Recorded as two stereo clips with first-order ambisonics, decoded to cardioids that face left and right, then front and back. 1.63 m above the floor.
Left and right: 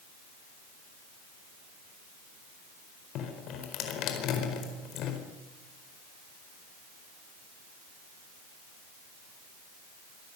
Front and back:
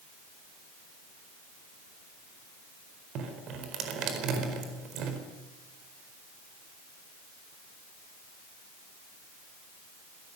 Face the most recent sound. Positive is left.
turn(degrees=135)